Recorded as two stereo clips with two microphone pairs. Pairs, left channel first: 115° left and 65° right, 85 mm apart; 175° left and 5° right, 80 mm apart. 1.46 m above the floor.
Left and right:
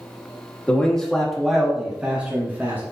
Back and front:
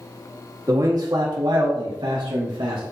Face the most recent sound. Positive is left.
turn(degrees=0)